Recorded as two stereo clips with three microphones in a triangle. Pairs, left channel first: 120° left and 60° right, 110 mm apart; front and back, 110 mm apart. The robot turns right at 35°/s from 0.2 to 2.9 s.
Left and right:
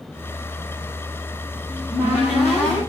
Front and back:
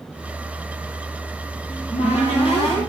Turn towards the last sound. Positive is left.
turn(degrees=50)